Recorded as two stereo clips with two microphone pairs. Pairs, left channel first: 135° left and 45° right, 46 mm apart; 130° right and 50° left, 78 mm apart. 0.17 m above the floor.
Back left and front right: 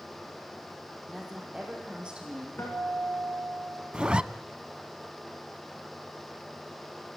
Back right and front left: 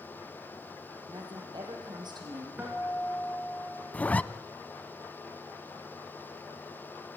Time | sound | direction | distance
1.1 | a woman speaking | 40° left | 6 m
2.6 | a guitar | 115° left | 8 m
3.9 | a zipper | 90° right | 0.6 m